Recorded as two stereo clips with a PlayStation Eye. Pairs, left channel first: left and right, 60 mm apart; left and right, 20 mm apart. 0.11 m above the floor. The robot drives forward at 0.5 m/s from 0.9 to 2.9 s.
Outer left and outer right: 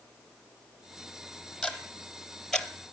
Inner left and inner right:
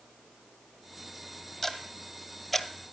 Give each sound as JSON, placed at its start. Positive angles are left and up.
{"t": 1.6, "sound": "ticking", "side_deg": 5, "distance_m": 1.2}